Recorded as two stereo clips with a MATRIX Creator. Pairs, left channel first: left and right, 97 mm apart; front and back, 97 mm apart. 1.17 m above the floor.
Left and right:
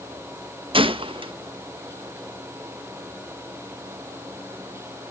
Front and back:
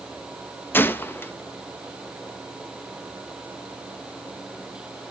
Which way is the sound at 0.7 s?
65° right.